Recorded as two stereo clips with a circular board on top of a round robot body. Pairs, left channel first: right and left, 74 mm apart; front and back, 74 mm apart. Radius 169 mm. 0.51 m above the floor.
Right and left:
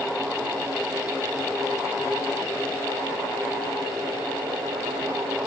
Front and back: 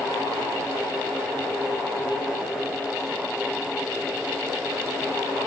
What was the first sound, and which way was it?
Only background noise.